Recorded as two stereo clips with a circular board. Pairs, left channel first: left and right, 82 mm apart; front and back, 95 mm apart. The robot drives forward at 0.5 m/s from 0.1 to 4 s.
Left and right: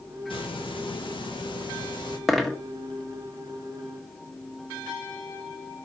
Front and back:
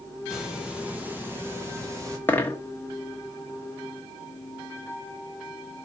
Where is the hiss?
95° left, 1.8 m; by 2.2 s 120° left, 2 m.